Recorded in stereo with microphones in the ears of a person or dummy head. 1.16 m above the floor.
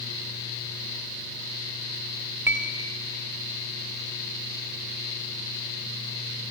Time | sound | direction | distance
2.5 | a clink | 10° right (ahead or behind) | 1.9 m